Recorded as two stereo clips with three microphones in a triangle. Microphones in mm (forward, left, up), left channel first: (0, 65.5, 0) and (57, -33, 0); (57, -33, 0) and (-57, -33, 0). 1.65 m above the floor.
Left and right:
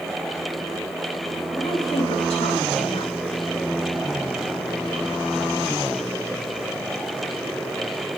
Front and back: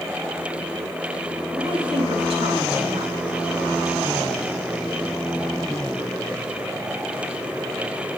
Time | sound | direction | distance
1.5 | a woman speaking | 150° left | 3.5 m